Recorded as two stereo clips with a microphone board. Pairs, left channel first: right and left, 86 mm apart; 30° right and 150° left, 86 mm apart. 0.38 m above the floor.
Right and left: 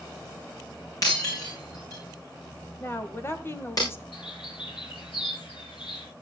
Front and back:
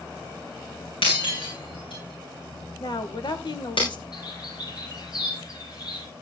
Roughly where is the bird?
Right.